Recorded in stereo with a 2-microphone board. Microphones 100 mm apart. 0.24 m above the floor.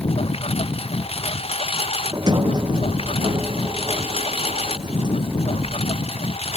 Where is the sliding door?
45° right (ahead or behind).